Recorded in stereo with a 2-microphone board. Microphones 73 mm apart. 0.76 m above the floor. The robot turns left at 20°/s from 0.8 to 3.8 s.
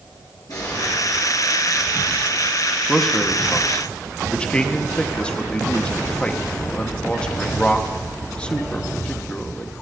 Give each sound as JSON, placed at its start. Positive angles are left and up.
{"t": 0.5, "sound": "an explosion", "side_deg": 55, "distance_m": 9.5}
{"t": 2.9, "sound": "a man speaking", "side_deg": 5, "distance_m": 1.2}